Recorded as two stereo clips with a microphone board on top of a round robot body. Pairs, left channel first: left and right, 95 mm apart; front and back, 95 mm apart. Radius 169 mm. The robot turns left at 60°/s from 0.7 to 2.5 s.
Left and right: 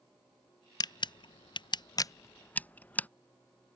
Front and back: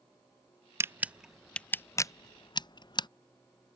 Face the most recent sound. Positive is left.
turn(degrees=20)